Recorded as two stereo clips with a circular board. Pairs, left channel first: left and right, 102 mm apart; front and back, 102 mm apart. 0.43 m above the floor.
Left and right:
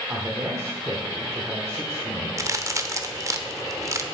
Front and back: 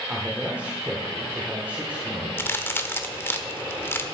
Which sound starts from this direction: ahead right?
A crack, at 2.4 s.